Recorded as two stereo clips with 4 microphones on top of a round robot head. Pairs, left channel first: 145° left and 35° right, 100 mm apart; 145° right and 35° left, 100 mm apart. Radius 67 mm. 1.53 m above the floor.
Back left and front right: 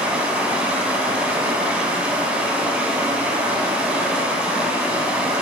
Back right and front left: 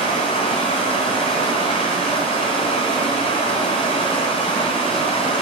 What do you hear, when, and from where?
0.0 s running water: 115° right, 2 m